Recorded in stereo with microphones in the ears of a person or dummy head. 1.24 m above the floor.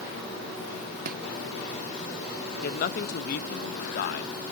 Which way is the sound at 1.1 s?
45° right (ahead or behind).